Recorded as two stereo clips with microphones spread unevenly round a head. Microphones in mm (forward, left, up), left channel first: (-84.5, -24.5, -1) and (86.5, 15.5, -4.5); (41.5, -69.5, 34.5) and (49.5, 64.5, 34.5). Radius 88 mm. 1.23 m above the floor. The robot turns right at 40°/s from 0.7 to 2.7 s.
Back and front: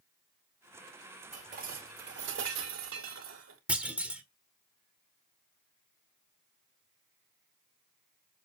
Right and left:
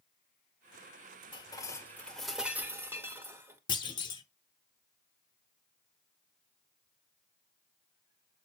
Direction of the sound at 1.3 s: 40° right.